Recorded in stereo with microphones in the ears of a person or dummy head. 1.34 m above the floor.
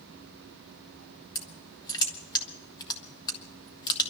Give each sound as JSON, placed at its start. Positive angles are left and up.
{"t": 1.4, "sound": "crushing", "side_deg": 20, "distance_m": 1.2}